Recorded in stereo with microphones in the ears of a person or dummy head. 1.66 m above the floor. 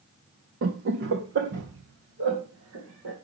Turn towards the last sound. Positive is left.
turn(degrees=-65)  # may be behind; listen again after turning